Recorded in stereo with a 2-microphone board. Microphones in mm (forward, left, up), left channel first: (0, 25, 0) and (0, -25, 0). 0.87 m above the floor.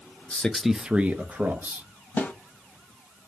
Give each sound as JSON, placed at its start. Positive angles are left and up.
{"t": 0.3, "sound": "a man speaking", "side_deg": 25, "distance_m": 0.5}
{"t": 2.2, "sound": "a snare drum", "side_deg": 30, "distance_m": 1.2}